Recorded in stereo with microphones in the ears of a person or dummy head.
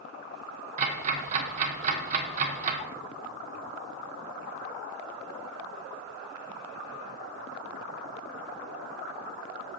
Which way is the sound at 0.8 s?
40° right (ahead or behind).